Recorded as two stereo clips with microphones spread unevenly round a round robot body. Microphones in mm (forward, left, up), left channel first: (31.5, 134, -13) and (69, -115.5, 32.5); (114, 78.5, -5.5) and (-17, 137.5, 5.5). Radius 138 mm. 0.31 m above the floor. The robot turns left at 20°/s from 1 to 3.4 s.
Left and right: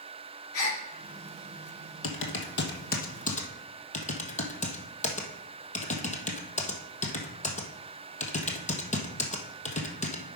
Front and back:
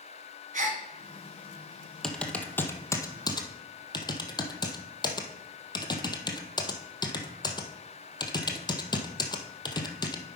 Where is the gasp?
130° left, 3 m.